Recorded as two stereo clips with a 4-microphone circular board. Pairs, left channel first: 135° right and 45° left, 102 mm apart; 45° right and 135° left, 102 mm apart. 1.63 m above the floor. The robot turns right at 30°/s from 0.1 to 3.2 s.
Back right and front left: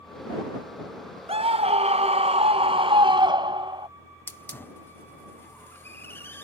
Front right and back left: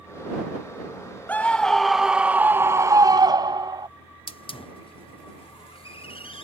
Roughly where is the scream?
Ahead left.